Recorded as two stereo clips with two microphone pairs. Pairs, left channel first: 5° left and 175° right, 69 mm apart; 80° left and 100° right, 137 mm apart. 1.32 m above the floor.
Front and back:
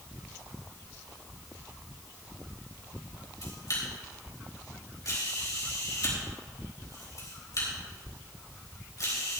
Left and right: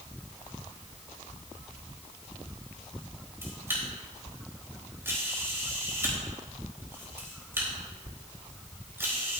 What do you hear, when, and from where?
3.4 s a camera shutter: 30° right, 4 m